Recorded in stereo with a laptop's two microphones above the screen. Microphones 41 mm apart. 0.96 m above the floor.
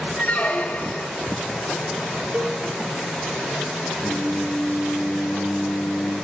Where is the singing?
15° right (ahead or behind), 6 m.